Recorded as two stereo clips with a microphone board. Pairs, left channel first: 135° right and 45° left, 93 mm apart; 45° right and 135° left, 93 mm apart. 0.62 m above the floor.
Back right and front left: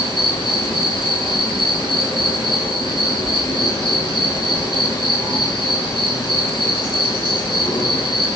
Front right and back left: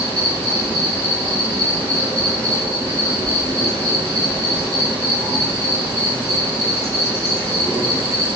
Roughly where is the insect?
Behind.